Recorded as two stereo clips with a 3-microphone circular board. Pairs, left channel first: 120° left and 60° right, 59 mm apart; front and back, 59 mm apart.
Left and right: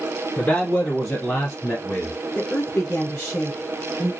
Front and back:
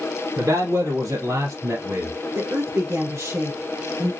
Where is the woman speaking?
Straight behind, 2.5 m.